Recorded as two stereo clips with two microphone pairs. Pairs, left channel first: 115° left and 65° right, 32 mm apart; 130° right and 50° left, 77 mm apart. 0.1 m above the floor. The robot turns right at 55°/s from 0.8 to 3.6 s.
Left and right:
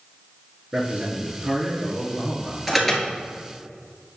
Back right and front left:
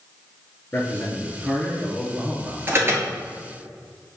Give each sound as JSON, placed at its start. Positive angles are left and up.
{"t": 0.7, "sound": "a man speaking", "azimuth_deg": -100, "distance_m": 1.3}
{"t": 2.7, "sound": "an alarm", "azimuth_deg": 20, "distance_m": 1.2}